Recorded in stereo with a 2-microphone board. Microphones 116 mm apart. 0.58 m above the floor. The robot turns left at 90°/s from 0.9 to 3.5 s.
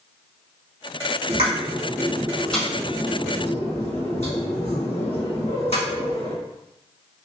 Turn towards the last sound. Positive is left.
turn(degrees=75)  # may be behind; listen again after turning